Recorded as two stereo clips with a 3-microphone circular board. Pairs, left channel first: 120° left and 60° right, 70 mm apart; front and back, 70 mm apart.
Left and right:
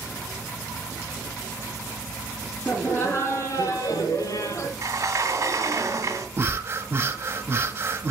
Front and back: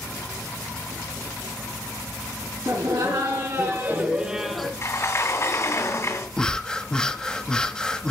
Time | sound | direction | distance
2.6 | laughter | straight behind | 2.5 m
4.8 | a sliding door | 30° right | 2 m
6.4 | breathing | 70° right | 0.8 m